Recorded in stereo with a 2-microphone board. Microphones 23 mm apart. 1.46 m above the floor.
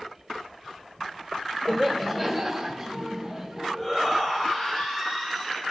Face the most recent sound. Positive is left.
turn(degrees=-20)  # may be behind; listen again after turning